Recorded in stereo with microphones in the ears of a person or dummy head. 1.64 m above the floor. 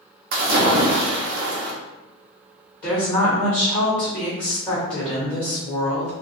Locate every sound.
0.3 s a splash: 55° right (ahead or behind), 0.8 m
2.8 s a woman speaking: 20° left (ahead or behind), 1.3 m